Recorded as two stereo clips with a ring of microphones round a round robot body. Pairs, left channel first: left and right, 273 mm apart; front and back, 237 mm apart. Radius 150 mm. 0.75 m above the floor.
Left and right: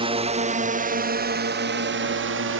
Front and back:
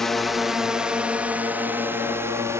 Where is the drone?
85° right; by 2.6 s 105° right.